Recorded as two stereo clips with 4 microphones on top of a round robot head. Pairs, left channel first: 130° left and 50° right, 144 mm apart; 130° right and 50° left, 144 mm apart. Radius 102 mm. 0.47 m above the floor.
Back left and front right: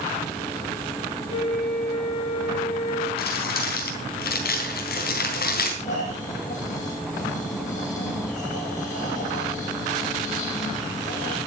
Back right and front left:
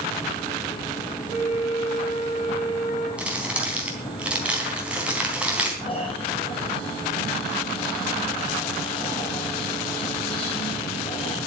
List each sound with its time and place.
1.3 s a flute: 175° right, 5 m
3.2 s crumpling: 130° left, 3.5 m
5.8 s snoring: 170° left, 5 m